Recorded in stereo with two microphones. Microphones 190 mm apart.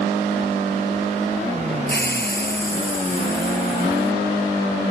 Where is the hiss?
60° left (ahead or behind).